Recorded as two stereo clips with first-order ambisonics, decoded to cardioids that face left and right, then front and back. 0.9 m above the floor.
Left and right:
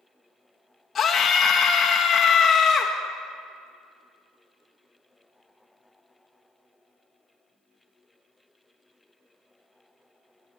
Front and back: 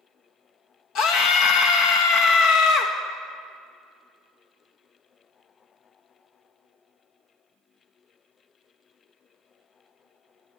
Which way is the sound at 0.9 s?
25° left.